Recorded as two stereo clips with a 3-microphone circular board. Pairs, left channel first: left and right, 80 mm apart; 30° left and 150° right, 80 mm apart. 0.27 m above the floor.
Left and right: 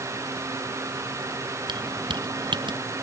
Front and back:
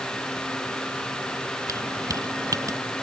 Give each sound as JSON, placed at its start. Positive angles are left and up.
{"t": 1.7, "sound": "keys jangling", "azimuth_deg": -105}